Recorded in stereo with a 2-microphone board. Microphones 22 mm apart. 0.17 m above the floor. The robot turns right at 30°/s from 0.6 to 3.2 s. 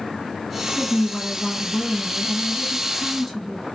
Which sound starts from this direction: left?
A woman speaking, at 0.8 s.